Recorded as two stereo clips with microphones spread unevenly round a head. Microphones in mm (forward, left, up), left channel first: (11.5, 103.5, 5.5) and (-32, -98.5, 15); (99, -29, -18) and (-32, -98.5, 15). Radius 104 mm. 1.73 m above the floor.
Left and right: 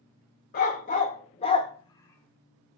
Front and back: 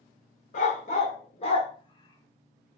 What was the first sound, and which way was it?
A dog barking, 55° left.